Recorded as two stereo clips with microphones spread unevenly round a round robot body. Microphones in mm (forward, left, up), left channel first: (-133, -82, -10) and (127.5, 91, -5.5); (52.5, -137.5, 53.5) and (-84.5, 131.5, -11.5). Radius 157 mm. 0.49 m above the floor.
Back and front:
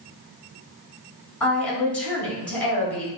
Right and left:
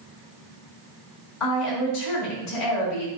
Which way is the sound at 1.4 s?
60° right.